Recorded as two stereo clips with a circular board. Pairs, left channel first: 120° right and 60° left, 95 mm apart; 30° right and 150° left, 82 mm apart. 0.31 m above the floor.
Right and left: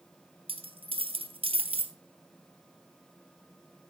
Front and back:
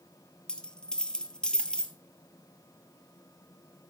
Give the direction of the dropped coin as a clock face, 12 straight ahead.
10 o'clock.